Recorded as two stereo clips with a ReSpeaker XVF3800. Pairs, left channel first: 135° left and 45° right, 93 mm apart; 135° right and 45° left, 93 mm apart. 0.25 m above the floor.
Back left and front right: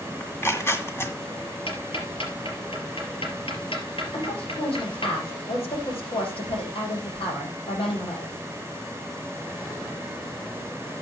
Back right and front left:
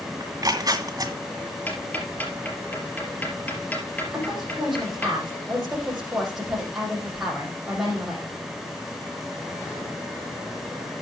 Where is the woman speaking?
130° left, 9 m.